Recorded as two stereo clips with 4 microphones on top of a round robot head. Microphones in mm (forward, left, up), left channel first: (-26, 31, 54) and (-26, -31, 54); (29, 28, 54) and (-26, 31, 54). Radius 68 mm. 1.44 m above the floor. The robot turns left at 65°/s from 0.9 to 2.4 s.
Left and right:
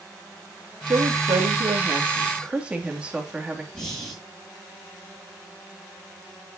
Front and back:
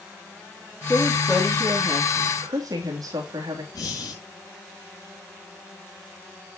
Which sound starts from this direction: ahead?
Breathing, at 3.7 s.